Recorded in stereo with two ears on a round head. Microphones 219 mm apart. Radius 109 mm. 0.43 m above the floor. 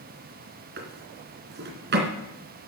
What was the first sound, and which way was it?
A drawer, 45° right (ahead or behind).